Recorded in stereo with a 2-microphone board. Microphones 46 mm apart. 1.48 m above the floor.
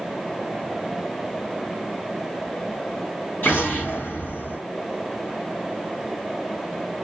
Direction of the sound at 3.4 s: 45° left (ahead or behind).